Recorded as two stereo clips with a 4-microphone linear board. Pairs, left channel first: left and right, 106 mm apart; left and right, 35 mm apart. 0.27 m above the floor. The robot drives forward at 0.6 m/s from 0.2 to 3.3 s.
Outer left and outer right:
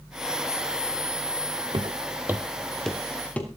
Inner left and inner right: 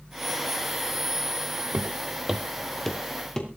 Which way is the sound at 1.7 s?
55° right (ahead or behind).